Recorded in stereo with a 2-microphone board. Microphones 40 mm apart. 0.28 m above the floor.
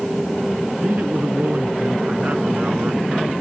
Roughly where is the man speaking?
Right.